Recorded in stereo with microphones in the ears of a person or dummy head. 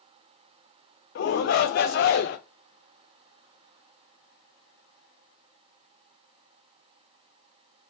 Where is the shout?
60° left (ahead or behind), 0.6 m.